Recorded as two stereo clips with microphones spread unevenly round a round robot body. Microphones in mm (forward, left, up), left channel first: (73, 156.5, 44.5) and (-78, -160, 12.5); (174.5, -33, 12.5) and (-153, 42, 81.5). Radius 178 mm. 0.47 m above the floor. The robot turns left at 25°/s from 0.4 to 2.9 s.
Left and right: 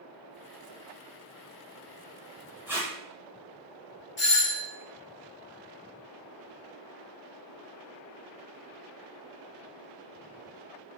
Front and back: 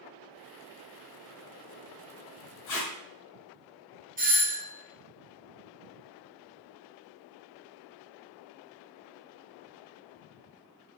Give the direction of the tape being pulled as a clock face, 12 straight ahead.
1 o'clock.